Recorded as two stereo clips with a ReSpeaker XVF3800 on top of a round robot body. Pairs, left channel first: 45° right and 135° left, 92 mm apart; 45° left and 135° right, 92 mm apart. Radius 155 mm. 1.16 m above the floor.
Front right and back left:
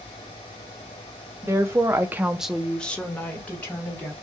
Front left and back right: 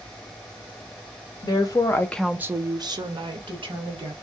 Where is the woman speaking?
80° left, 0.8 m; by 4.1 s 115° right, 1.4 m.